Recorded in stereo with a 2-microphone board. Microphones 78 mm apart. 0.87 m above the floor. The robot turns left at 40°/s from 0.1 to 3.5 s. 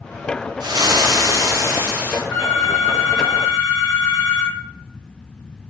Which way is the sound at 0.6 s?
95° right.